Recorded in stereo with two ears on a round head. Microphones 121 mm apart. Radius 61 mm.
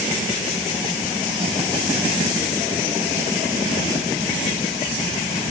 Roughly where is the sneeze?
I don't hear a sneeze.